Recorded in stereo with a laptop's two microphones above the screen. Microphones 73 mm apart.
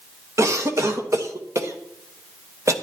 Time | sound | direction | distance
0.4 | a cough | 40° right (ahead or behind) | 1.3 m